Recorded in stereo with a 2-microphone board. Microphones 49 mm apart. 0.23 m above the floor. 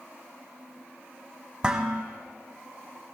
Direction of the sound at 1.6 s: 20° right (ahead or behind).